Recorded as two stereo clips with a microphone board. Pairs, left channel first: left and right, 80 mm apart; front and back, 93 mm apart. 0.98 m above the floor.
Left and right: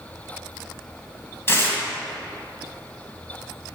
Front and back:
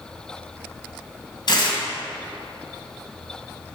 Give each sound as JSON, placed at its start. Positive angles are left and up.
{"t": 1.5, "sound": "tearing paper", "azimuth_deg": 30, "distance_m": 2.0}